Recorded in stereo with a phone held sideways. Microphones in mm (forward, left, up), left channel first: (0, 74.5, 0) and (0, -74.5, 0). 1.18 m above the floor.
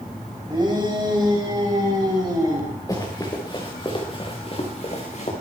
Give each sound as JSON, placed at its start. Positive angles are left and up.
{"t": 0.5, "sound": "a shout", "side_deg": -30, "distance_m": 5.0}
{"t": 2.9, "sound": "running footsteps", "side_deg": 25, "distance_m": 5.0}